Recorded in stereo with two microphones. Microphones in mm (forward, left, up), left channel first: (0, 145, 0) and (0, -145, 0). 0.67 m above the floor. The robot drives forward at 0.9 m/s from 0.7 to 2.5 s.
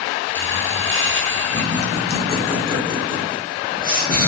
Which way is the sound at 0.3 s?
45° right (ahead or behind).